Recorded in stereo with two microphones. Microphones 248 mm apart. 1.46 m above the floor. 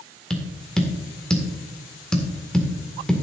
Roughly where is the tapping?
Centre.